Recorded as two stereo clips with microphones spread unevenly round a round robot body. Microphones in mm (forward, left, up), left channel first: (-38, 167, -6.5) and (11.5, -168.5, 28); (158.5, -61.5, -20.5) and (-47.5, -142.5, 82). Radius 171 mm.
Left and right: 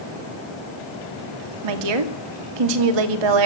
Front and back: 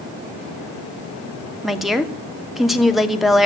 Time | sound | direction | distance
1.6 | a woman speaking | 65° right | 2.5 m